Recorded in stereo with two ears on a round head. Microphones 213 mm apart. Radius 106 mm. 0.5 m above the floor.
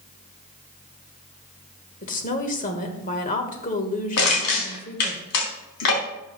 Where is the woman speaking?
35° left (ahead or behind), 1.4 m.